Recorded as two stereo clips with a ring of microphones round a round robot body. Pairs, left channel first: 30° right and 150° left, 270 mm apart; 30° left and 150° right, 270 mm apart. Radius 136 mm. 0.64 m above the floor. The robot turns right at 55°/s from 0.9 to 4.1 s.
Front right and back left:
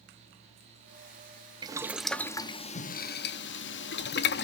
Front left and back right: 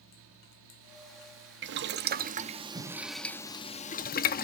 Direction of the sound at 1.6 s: 145° right.